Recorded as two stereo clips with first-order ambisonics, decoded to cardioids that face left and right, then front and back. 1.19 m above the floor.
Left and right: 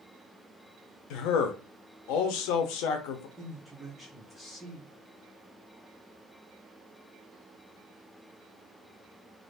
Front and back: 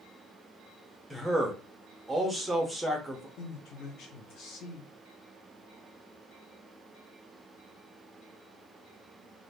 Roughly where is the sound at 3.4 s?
Ahead.